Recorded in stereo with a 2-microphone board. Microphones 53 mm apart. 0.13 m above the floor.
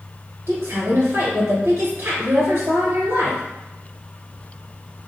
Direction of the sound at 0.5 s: 55° right (ahead or behind).